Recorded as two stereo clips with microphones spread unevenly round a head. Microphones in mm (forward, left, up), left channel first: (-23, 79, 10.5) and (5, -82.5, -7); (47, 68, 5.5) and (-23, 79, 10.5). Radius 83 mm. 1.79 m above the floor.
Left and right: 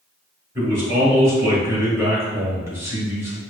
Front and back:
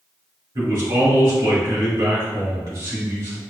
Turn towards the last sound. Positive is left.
turn(degrees=-155)